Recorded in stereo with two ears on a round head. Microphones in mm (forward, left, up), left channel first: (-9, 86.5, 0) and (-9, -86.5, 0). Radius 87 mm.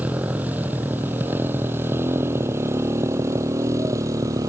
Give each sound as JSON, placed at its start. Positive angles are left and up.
{"t": 0.0, "sound": "a motorcycle", "side_deg": -10}